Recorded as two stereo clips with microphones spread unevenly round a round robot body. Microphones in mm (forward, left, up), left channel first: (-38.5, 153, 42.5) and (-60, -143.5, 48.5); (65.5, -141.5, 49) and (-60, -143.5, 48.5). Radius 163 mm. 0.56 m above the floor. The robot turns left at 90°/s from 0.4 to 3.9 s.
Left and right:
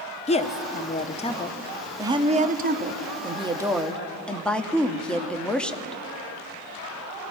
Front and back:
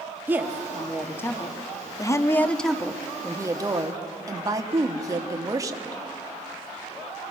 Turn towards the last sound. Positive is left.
turn(degrees=165)